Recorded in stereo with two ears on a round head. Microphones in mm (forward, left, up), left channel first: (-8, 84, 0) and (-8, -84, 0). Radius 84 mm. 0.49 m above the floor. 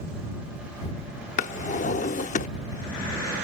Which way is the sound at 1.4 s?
45° left (ahead or behind).